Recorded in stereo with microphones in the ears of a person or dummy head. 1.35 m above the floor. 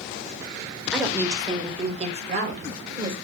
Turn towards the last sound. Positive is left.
turn(degrees=-50)  # may be behind; listen again after turning